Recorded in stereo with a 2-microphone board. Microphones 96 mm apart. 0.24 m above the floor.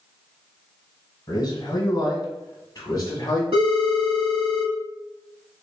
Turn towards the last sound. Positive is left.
turn(degrees=-60)  # may be behind; listen again after turning